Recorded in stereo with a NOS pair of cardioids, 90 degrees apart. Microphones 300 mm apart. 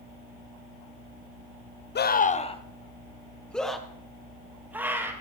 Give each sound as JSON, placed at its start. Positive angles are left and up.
{"t": 1.9, "sound": "a scream", "azimuth_deg": 35, "distance_m": 1.1}